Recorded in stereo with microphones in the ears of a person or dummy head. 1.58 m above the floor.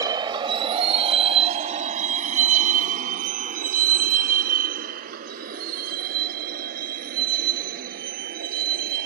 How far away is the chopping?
I don't hear chopping.